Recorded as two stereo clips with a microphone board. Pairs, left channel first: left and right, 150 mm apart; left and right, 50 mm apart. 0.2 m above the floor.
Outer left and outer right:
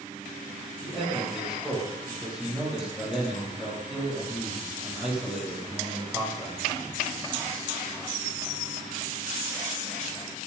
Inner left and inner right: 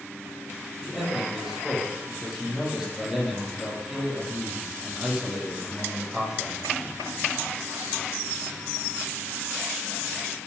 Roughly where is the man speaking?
Centre.